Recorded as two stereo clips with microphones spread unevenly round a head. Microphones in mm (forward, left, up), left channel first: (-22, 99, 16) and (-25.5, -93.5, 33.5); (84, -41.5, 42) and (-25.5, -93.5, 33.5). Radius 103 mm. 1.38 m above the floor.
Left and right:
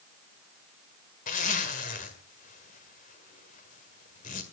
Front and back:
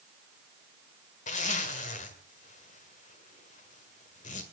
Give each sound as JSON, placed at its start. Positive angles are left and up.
{"t": 1.3, "sound": "a zipper", "azimuth_deg": 35, "distance_m": 1.8}